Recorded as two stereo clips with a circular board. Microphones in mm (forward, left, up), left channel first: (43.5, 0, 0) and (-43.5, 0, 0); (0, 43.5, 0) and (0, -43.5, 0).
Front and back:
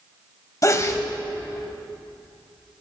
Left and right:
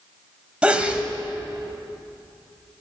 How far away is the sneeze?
About 1.5 m.